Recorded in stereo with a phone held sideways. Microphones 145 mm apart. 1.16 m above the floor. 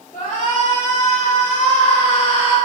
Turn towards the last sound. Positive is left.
turn(degrees=35)  # may be behind; listen again after turning